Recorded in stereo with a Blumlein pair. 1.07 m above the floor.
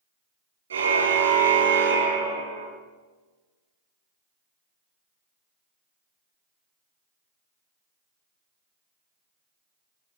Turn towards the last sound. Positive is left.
turn(degrees=-60)